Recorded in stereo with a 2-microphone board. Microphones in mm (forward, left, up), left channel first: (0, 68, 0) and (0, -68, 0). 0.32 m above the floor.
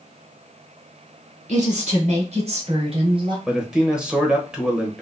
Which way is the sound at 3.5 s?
5° right (ahead or behind).